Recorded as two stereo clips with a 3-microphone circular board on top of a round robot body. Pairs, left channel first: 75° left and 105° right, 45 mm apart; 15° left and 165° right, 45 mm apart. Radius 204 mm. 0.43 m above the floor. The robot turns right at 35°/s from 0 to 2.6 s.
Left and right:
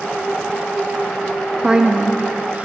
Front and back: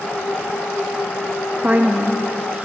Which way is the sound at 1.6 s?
170° right.